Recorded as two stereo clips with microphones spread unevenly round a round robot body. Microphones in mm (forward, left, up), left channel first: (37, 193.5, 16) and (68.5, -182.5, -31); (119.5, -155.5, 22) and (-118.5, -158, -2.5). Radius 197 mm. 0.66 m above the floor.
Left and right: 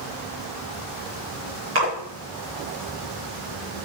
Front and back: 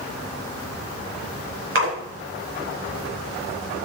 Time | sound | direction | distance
1.8 | a splash | 145° right | 5.5 m